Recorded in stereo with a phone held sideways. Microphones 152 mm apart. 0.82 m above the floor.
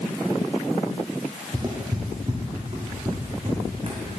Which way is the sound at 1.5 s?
30° right (ahead or behind).